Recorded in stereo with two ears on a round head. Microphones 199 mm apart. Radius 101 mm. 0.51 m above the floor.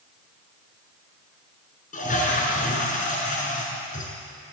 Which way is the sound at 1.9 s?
35° left (ahead or behind).